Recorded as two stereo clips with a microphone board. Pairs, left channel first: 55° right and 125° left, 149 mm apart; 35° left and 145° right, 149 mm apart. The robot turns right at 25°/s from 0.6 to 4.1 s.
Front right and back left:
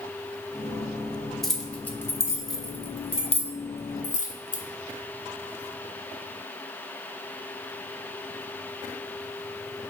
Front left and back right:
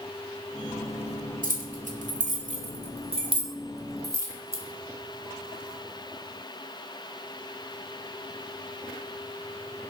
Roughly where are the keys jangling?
Behind right.